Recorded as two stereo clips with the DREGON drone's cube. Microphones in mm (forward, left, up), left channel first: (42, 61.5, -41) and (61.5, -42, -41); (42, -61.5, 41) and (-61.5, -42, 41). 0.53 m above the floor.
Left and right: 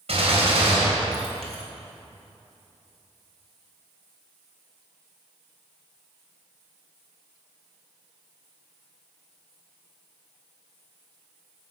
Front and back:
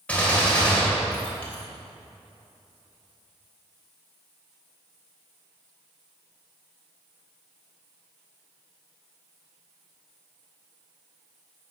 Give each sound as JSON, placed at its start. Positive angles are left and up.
{"t": 0.1, "sound": "a gunshot", "azimuth_deg": -90, "distance_m": 3.0}